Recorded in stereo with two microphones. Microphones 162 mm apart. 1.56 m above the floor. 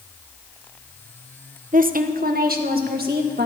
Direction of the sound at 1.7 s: 55° right (ahead or behind).